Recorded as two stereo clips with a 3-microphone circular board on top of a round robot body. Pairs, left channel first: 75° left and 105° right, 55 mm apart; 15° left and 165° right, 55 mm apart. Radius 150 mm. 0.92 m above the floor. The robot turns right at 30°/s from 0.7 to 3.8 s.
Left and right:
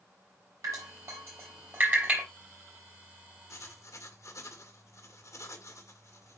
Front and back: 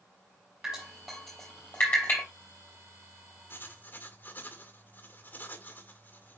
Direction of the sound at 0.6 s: 80° right.